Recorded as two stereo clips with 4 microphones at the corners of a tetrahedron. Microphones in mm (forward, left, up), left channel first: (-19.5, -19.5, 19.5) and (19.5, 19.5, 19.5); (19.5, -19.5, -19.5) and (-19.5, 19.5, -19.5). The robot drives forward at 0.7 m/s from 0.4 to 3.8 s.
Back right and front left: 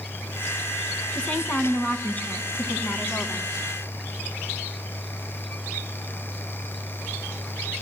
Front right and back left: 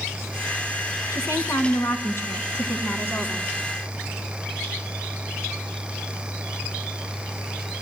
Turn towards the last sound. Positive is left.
turn(degrees=-105)